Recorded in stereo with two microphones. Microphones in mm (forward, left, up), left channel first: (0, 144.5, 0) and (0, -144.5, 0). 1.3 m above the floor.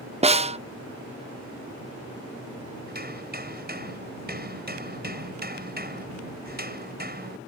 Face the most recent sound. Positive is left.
turn(degrees=-35)  # may be behind; listen again after turning